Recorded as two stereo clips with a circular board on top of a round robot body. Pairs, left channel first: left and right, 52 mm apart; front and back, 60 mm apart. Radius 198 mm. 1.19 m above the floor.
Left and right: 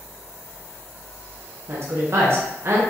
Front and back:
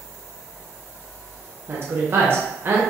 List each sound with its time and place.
1.7 s a woman speaking: 125° right, 0.8 m